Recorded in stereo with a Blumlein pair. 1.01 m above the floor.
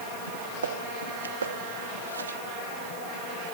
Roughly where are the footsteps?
Ahead right.